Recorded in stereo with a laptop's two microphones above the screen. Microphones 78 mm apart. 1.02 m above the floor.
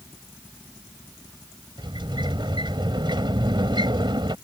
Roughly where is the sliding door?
Right.